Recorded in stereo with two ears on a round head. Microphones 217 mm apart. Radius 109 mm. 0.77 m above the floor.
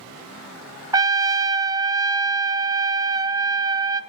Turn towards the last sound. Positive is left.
turn(degrees=-15)  # may be behind; listen again after turning